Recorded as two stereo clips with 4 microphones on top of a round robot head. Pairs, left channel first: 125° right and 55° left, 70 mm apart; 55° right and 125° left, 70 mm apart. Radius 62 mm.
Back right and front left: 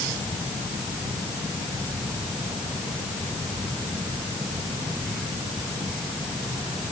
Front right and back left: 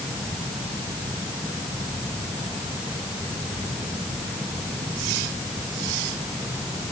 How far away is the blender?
No blender in this recording.